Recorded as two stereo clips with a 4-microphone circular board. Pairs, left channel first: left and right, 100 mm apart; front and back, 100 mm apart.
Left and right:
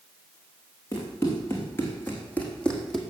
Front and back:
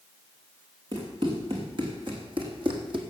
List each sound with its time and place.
0.9 s running footsteps: 150° left, 4.5 m; by 3.0 s straight behind, 2 m